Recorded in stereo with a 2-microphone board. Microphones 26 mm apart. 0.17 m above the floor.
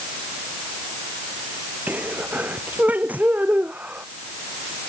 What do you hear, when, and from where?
1.9 s a sneeze: 85° right